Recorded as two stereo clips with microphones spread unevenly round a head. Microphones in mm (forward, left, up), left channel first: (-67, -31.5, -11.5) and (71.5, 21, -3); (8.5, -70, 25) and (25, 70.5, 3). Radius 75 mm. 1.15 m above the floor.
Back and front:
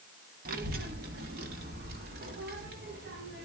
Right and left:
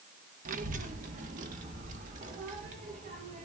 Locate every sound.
0.5 s a child speaking: 55° left, 1.3 m; by 3.5 s 50° left, 3 m